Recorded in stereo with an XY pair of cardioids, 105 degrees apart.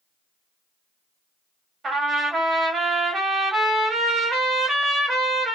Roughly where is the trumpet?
Ahead right.